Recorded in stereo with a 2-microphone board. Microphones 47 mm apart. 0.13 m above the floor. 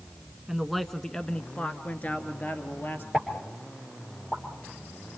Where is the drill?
No drill in this recording.